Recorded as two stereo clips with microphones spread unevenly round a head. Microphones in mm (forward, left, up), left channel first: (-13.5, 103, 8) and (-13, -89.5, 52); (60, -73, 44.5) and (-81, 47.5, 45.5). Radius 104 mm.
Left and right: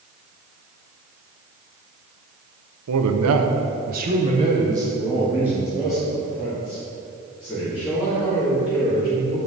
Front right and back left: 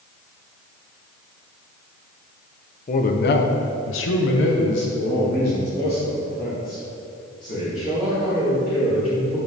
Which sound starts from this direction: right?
A man speaking, at 2.9 s.